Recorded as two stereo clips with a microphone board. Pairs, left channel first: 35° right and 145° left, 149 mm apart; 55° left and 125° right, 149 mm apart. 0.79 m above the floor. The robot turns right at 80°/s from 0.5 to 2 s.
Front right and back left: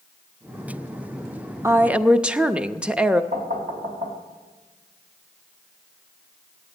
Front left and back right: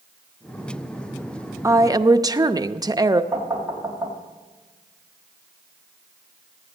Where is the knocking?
160° left, 2.5 m.